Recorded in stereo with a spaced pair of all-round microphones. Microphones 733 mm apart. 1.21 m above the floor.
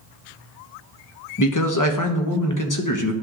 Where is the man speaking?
25° left (ahead or behind), 0.9 m.